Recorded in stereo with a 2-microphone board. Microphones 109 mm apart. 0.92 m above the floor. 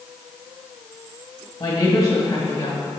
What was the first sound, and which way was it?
A woman speaking, 30° left (ahead or behind).